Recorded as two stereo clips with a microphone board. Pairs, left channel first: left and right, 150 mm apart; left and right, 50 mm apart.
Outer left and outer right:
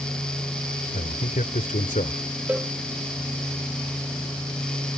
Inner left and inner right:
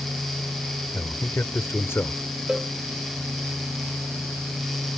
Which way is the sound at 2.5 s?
10° right (ahead or behind).